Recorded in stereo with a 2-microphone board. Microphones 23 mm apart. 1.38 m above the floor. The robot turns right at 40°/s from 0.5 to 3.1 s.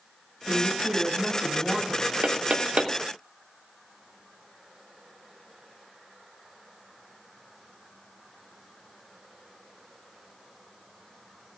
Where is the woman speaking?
80° right, 8.5 m; by 2.1 s 20° right, 8.5 m.